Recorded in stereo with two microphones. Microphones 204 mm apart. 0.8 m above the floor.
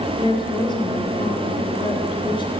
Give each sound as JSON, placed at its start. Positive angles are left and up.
{"t": 0.2, "sound": "a woman speaking", "side_deg": 25, "distance_m": 4.0}